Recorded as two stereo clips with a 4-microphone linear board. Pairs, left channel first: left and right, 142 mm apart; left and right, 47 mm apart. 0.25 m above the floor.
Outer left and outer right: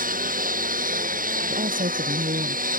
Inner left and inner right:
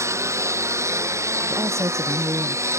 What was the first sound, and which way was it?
A lawn mower, 80° right.